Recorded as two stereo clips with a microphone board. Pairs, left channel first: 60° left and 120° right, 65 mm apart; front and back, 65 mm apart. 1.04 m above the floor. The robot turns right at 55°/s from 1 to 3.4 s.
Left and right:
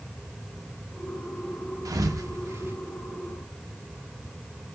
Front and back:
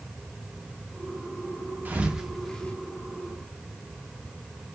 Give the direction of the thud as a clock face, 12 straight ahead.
4 o'clock.